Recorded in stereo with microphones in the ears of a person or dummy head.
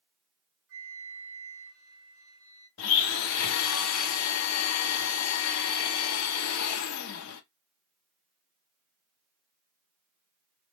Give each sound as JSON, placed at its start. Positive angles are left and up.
{"t": 0.7, "sound": "a flute", "side_deg": -50, "distance_m": 2.0}
{"t": 2.8, "sound": "a blender", "side_deg": 80, "distance_m": 0.5}